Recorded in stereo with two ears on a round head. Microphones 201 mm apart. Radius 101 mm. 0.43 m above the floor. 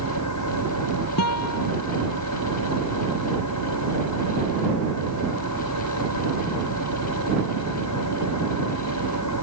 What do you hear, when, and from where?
0.0 s an engine running: 85° left
1.2 s a guitar: 85° left